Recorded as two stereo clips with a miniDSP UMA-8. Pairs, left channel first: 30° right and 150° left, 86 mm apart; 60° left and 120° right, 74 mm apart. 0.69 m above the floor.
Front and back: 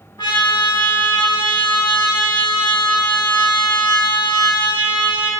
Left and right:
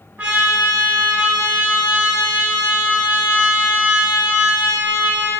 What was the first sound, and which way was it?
A trumpet, 55° right.